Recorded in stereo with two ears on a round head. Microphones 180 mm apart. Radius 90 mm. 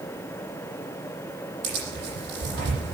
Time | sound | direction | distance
1.6 | tearing paper | 60° right (ahead or behind) | 9 m